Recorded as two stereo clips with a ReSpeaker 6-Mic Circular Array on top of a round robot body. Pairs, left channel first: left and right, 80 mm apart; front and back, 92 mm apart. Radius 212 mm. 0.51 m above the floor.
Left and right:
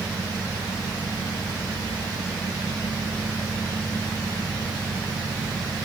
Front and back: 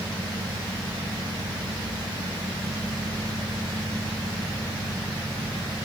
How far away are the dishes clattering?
I don't hear dishes clattering.